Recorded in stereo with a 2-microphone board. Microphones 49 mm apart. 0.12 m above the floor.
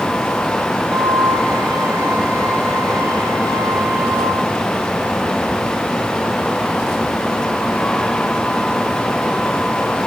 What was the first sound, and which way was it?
A flute, 75° right (ahead or behind).